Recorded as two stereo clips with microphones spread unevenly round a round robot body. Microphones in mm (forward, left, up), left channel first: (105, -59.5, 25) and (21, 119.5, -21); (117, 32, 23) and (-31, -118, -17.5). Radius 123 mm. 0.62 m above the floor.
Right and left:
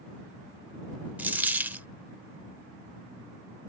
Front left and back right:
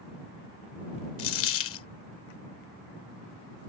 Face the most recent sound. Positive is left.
turn(degrees=30)